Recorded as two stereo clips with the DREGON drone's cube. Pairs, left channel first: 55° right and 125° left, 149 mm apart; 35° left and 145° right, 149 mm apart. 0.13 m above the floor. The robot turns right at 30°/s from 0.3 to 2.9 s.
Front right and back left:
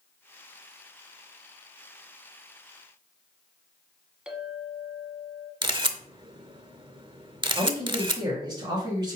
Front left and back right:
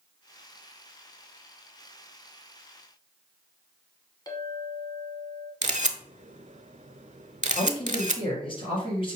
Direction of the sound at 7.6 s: 75° left.